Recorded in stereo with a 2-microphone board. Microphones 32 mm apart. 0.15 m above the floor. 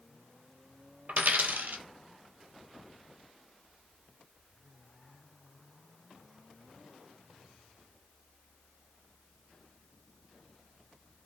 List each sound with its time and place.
1.1 s a dropped coin: 65° right (ahead or behind), 0.6 m